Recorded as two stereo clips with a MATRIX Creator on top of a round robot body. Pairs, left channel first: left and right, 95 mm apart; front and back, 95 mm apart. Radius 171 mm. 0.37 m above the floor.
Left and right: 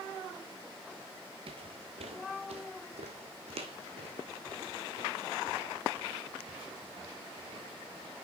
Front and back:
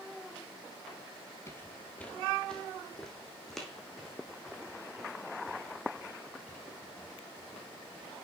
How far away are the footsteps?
About 0.6 m.